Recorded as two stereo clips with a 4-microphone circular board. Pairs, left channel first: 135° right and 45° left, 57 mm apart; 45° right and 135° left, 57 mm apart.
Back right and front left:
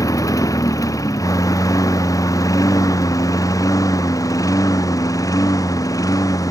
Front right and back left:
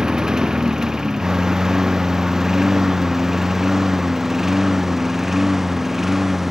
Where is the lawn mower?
145° right; by 6.5 s 140° right.